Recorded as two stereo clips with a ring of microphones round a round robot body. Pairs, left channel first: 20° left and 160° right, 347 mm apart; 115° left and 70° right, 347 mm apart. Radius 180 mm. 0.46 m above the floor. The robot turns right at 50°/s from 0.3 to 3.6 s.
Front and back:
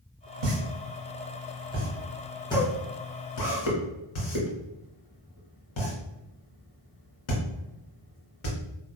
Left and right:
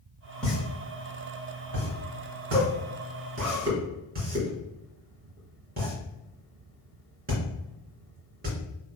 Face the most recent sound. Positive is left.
turn(degrees=0)